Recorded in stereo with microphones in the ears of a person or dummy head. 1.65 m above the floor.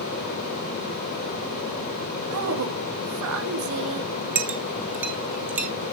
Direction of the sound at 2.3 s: 75° right (ahead or behind).